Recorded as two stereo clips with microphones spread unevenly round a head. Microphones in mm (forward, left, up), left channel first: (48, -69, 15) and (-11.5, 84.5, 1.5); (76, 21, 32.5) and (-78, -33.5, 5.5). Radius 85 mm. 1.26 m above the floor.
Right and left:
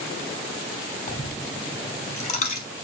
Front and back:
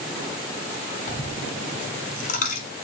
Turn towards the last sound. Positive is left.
turn(degrees=-25)